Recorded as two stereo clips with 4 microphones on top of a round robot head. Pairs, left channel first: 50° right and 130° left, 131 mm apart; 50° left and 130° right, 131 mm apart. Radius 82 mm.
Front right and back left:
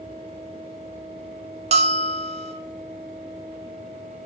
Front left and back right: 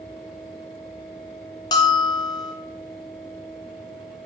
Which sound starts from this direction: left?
A bell, at 1.7 s.